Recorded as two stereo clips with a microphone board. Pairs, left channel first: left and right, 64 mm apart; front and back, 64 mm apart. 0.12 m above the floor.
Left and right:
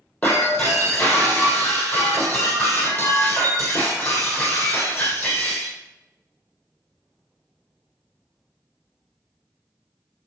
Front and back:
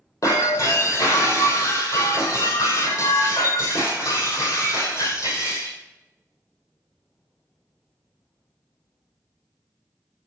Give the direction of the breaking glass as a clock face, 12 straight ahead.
11 o'clock.